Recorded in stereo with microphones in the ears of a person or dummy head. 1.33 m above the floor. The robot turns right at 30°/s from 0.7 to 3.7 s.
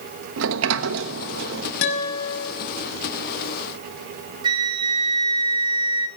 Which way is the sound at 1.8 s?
60° left (ahead or behind).